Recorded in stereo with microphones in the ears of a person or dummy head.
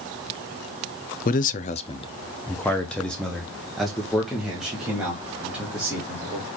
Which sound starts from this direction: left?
A man speaking, at 1.2 s.